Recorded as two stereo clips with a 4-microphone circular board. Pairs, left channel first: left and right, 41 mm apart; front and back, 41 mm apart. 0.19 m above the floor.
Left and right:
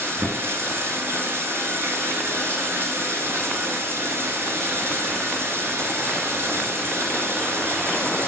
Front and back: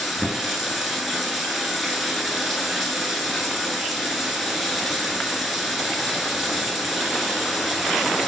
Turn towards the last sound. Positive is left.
turn(degrees=-95)